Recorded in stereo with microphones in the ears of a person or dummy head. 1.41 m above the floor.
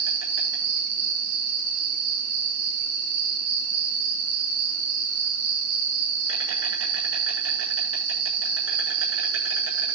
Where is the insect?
85° right, 7 m.